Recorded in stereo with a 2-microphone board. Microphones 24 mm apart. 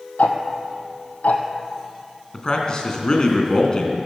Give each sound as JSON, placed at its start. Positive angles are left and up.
{"t": 0.2, "sound": "ticking", "side_deg": 85, "distance_m": 1.7}
{"t": 2.3, "sound": "a man speaking", "side_deg": 35, "distance_m": 2.5}